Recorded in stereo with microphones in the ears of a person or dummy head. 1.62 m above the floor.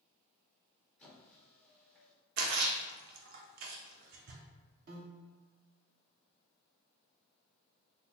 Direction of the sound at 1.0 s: 10° left (ahead or behind).